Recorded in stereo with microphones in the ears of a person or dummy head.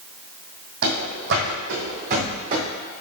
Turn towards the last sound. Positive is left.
turn(degrees=-30)  # may be behind; listen again after turning